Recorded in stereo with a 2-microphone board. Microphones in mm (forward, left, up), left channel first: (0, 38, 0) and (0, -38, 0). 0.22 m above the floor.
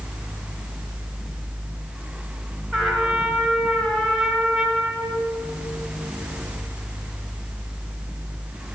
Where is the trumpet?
5° left (ahead or behind), 3 m.